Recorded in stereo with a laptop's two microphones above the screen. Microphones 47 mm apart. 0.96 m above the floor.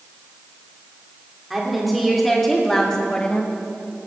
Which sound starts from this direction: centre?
A woman speaking, at 1.5 s.